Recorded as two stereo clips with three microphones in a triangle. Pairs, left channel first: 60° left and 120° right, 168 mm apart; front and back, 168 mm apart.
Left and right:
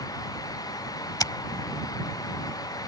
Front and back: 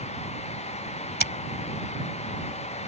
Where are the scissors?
5° right.